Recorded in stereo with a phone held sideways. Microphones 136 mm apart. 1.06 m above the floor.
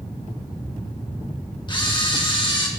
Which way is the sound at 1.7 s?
35° left (ahead or behind).